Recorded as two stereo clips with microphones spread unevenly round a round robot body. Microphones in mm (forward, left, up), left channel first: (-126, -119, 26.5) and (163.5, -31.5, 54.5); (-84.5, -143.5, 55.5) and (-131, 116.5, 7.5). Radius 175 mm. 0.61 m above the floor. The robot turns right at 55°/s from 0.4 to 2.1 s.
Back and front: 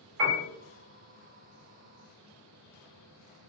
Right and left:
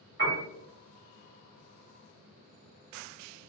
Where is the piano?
55° left, 1.5 m.